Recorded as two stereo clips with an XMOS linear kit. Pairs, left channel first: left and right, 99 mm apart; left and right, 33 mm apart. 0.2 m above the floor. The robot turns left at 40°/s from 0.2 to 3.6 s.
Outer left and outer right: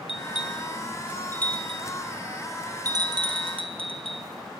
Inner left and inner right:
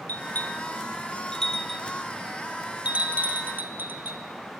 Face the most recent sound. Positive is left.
turn(degrees=-70)  # may be behind; listen again after turning